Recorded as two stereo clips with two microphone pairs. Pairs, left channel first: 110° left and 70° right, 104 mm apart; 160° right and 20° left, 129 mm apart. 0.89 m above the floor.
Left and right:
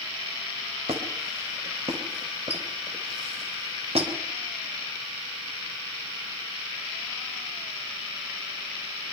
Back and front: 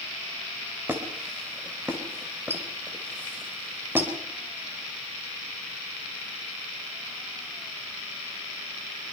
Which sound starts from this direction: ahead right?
A squeak, at 0.9 s.